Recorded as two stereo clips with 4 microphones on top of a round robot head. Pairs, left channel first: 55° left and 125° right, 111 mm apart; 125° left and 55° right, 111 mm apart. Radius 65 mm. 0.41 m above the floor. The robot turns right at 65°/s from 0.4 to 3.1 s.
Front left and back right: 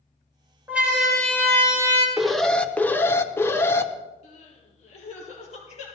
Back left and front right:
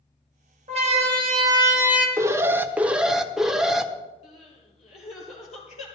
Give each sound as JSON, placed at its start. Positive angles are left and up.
{"t": 0.7, "sound": "a siren", "azimuth_deg": -50, "distance_m": 3.5}
{"t": 2.2, "sound": "an alarm", "azimuth_deg": -40, "distance_m": 1.1}
{"t": 4.2, "sound": "crying", "azimuth_deg": 90, "distance_m": 4.0}